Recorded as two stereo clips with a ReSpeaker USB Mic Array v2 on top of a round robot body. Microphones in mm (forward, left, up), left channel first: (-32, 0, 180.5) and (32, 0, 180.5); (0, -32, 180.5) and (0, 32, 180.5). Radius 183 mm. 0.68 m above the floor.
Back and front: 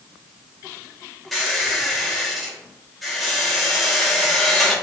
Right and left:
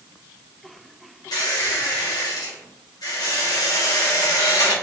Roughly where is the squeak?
Right.